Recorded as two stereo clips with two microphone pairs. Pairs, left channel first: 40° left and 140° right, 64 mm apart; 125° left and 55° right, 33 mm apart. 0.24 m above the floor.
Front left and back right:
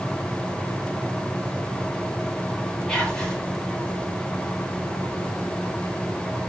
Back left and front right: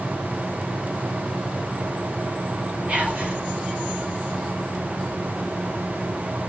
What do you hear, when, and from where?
2.9 s whispering: 35° right, 1.3 m